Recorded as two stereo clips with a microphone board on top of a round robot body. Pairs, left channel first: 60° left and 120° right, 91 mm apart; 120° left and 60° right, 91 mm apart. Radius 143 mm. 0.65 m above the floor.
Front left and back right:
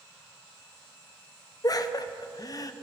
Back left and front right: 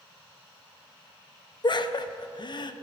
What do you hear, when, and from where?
1.6 s laughter: 100° left, 0.7 m